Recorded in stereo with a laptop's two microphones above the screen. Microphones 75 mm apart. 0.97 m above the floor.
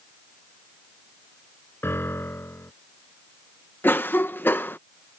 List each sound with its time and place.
1.8 s a piano: 30° left (ahead or behind)
3.8 s a cough: 25° left (ahead or behind)